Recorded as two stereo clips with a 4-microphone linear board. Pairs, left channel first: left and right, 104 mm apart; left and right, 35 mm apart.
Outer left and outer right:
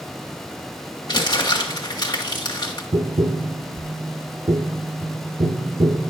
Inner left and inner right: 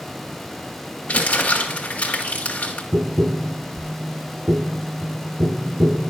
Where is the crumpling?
40° left (ahead or behind), 1.5 m.